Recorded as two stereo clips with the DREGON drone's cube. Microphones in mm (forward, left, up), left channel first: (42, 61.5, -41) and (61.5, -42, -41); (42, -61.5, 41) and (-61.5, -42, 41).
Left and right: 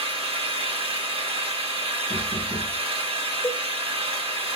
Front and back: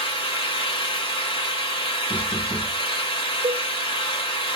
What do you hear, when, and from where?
0.0 s an engine running: 50° right, 1.0 m
2.1 s knocking: 125° right, 0.6 m
3.4 s a cowbell: 165° left, 0.5 m